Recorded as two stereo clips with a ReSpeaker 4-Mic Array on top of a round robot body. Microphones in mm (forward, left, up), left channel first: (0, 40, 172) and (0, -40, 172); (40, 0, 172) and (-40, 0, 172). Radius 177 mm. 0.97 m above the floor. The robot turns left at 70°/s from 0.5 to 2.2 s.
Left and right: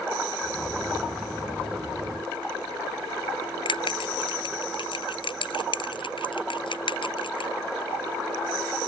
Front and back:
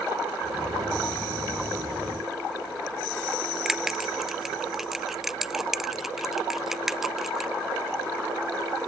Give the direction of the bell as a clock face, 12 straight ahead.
9 o'clock.